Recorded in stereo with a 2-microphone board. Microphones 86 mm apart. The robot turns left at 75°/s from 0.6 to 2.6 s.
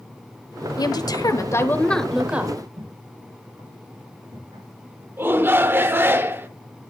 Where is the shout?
25° right (ahead or behind), 0.9 m.